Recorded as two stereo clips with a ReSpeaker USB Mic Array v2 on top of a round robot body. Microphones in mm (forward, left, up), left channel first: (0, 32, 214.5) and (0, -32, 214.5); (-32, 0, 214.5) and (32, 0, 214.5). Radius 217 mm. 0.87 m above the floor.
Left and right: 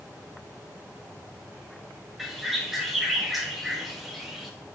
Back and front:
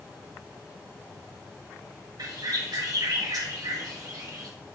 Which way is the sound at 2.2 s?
5° right.